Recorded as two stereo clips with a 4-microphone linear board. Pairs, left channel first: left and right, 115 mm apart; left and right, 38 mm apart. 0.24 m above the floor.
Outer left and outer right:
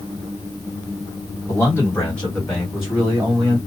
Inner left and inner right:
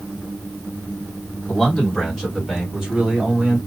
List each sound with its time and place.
1.5 s a man speaking: 30° left (ahead or behind), 1.7 m; by 3.6 s 25° right (ahead or behind), 1.7 m